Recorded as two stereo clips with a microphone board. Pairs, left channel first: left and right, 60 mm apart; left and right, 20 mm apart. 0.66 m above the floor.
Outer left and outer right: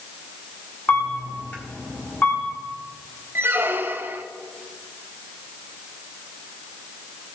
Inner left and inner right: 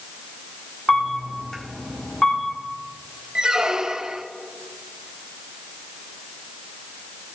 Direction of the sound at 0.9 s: 30° left (ahead or behind).